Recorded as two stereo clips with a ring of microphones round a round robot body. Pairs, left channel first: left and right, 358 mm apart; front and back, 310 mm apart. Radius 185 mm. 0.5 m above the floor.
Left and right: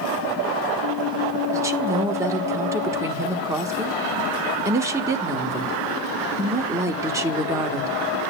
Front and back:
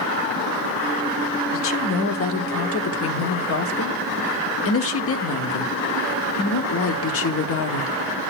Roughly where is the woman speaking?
Ahead.